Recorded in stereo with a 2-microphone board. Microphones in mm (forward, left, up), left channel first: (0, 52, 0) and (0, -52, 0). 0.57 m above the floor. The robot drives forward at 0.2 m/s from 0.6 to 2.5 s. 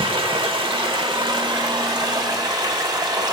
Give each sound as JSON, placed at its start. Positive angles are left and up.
{"t": 0.0, "sound": "running water", "side_deg": -55, "distance_m": 1.0}